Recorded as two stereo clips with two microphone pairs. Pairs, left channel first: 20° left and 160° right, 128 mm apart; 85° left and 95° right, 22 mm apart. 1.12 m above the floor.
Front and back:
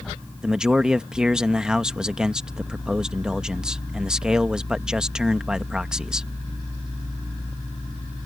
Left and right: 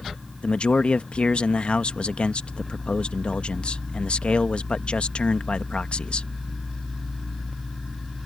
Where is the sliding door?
No sliding door in this recording.